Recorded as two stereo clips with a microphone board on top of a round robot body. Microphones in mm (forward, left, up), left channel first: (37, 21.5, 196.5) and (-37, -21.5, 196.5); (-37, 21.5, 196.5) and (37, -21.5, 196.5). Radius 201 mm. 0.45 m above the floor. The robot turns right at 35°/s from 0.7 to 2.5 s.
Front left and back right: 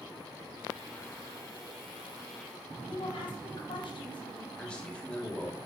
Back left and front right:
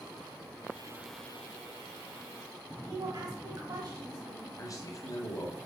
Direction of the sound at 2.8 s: 10° left.